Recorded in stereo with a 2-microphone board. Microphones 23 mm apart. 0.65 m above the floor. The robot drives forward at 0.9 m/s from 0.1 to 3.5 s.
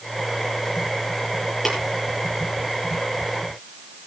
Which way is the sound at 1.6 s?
5° left (ahead or behind).